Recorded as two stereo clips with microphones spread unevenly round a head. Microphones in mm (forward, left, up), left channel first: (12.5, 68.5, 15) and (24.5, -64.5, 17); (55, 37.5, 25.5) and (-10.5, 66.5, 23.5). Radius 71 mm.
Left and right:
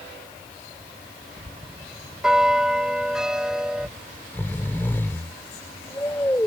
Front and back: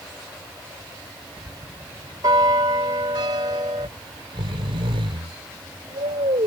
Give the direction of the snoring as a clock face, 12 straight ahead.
6 o'clock.